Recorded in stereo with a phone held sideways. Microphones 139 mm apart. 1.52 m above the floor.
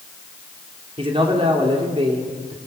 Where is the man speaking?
40° right (ahead or behind), 3.5 m.